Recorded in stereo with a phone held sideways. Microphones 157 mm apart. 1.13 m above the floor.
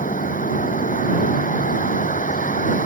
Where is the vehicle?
65° left (ahead or behind).